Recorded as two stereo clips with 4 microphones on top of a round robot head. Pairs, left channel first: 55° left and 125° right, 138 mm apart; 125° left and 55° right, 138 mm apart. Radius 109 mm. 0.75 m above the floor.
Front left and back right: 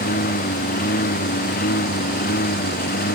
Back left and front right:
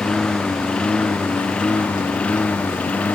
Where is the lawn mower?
40° left; by 3.2 s 45° left.